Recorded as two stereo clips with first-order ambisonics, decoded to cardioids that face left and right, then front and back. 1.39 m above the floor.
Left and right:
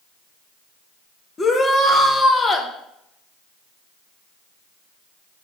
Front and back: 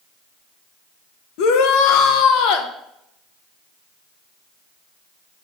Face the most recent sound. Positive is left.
turn(degrees=15)